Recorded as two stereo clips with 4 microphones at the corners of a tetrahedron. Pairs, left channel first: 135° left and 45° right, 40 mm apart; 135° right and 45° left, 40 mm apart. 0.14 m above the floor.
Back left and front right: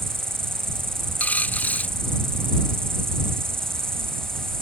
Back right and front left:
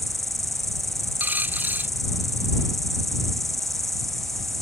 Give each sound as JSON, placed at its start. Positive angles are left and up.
{"t": 0.0, "sound": "an insect", "azimuth_deg": -50}
{"t": 1.2, "sound": "a dropped coin", "azimuth_deg": 85}